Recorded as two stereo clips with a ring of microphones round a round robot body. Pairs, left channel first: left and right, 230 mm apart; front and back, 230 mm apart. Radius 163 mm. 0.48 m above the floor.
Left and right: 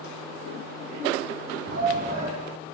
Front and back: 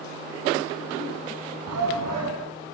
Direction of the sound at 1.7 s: 150° right.